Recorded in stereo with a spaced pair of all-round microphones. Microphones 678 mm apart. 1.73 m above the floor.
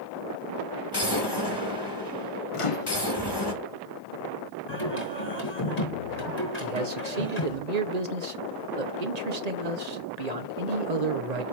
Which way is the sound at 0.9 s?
35° left (ahead or behind).